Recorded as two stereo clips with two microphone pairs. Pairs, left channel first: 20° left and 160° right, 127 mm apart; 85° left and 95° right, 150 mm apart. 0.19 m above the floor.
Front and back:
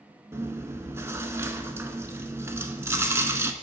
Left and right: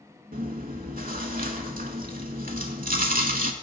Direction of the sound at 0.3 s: 100° right.